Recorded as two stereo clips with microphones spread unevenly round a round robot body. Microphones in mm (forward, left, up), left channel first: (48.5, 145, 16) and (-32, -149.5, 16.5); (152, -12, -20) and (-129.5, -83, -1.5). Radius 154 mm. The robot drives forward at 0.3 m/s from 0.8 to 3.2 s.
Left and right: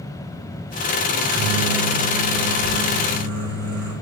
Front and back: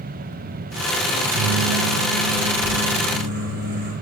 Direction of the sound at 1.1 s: 130° right.